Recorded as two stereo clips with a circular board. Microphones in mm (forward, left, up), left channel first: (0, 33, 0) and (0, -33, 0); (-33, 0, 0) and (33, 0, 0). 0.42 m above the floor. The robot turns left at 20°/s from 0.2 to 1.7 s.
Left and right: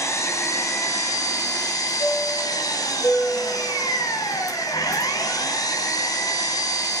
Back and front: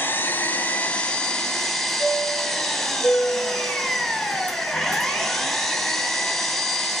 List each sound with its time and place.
0.0 s an engine running: 125° left, 3 m; by 7.0 s 95° left, 3 m
2.0 s a chime: 120° left, 4 m